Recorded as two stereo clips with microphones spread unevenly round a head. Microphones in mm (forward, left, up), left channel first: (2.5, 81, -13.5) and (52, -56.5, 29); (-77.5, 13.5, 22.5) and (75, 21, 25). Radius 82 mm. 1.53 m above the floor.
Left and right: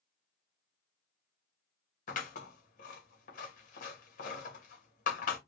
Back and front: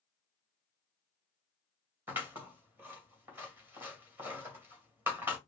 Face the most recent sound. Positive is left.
turn(degrees=80)